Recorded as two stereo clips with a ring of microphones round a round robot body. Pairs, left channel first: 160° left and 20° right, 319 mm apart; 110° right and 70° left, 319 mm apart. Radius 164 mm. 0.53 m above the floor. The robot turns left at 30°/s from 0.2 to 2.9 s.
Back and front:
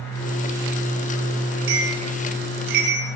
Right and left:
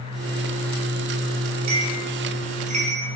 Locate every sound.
1.7 s a bell: 30° left, 6.5 m; by 3.1 s 5° right, 6.5 m